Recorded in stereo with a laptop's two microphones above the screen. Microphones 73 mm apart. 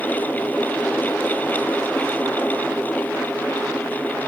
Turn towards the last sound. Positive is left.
turn(degrees=25)  # may be behind; listen again after turning